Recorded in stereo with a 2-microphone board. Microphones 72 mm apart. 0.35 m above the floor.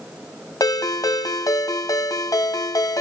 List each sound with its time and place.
0.6 s a ringtone: 65° left (ahead or behind), 1.2 m